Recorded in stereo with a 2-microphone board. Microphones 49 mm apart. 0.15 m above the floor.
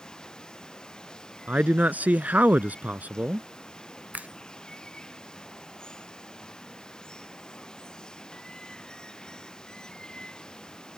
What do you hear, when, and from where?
0.0 s running water: 15° left (ahead or behind)
1.5 s a man speaking: 35° right (ahead or behind)
4.1 s a finger snap: 35° right (ahead or behind)